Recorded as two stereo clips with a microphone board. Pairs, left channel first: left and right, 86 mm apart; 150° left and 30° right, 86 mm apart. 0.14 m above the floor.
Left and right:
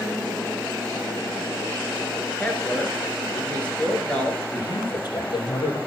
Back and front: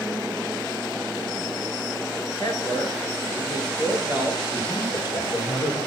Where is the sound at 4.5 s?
120° left, 4 m.